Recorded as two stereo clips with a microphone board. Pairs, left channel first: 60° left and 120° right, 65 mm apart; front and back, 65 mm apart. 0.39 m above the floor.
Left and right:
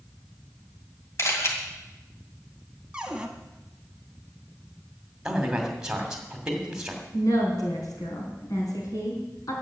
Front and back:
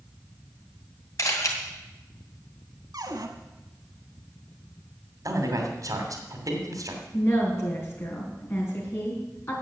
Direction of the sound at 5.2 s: 160° left.